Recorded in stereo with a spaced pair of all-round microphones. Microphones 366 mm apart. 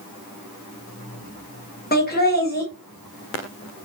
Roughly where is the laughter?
Left.